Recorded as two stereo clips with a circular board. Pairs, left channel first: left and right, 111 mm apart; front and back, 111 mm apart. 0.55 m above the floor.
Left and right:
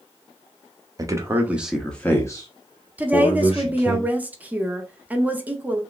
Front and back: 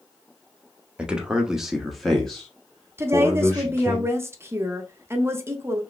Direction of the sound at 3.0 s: 145° right.